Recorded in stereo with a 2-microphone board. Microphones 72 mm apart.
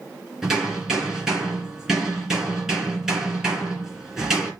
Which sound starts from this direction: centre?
Hammering, at 0.4 s.